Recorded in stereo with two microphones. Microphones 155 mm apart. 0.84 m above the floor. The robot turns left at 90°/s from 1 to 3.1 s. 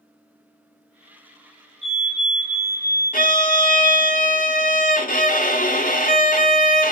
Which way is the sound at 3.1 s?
65° left (ahead or behind).